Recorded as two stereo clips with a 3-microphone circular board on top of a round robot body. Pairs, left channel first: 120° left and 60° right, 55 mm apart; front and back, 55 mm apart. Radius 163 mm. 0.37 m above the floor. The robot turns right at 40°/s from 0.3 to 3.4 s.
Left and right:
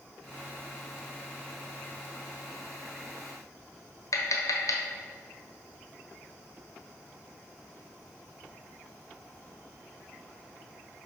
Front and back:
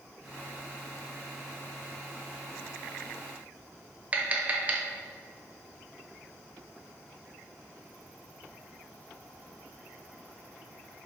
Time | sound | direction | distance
4.1 | tapping | 115° left | 1.3 m